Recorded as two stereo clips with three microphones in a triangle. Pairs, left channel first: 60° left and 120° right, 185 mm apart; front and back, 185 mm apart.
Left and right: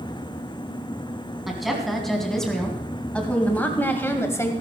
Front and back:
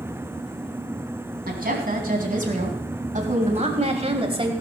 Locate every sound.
1.5 s a woman speaking: 150° left, 3 m; by 4.5 s 130° left, 2.0 m